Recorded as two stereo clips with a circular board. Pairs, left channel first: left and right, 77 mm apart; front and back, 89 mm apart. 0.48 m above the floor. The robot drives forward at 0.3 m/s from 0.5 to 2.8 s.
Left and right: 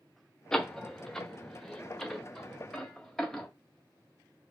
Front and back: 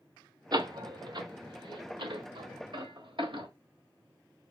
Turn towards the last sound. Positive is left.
turn(degrees=175)